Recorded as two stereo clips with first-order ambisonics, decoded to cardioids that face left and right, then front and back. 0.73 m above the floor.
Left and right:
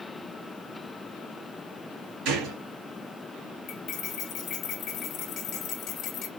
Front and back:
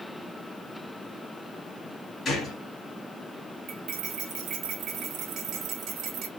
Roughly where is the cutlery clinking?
Behind left.